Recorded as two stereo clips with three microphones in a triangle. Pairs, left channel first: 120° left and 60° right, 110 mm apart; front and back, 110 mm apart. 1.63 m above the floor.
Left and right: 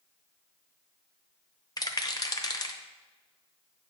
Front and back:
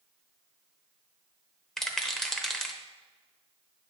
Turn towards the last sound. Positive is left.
turn(degrees=85)